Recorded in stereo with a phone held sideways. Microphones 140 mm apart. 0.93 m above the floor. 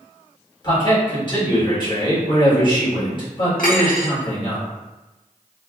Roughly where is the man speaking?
Left.